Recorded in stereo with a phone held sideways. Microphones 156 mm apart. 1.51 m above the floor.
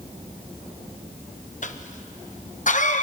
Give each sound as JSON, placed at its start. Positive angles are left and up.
{"t": 1.6, "sound": "a cough", "side_deg": 55, "distance_m": 1.1}